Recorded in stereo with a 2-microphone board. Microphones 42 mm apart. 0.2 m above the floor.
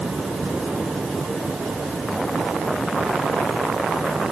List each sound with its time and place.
Only background noise.